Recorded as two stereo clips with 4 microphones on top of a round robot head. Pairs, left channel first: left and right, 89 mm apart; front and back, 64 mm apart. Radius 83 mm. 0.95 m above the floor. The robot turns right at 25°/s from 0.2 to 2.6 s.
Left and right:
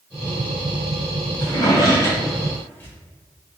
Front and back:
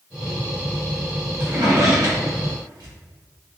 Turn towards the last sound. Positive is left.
turn(degrees=160)